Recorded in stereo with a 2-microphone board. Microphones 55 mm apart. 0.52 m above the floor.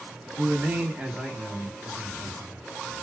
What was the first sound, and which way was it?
A man speaking, 35° right (ahead or behind).